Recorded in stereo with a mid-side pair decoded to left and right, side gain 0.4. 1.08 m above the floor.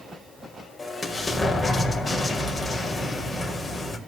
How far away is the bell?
No bell in this recording.